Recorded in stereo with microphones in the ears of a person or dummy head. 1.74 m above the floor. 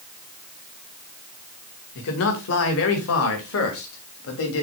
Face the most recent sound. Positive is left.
turn(degrees=75)  # may be behind; listen again after turning